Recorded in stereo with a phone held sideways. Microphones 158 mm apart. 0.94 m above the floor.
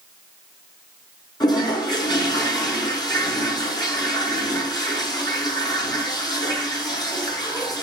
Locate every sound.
1.4 s a toilet flushing: 25° left (ahead or behind), 5 m